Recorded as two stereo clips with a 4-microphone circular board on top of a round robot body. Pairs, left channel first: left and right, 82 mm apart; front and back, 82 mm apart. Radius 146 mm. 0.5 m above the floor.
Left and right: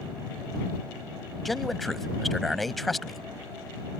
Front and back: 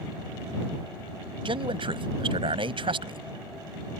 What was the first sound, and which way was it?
A man speaking, straight behind.